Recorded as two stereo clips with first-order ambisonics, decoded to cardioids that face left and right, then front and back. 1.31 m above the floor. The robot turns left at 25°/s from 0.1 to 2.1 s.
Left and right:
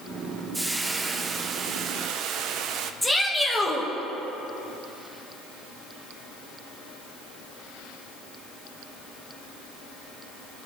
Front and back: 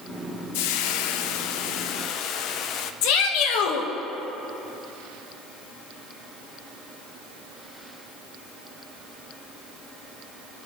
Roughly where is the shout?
Ahead.